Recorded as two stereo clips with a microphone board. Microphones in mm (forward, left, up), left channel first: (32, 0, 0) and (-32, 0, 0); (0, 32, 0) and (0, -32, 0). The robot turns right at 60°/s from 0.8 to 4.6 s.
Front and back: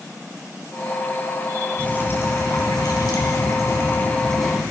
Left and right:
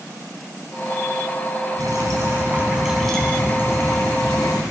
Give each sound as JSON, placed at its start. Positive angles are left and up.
{"t": 1.8, "sound": "dripping", "azimuth_deg": -75, "distance_m": 4.0}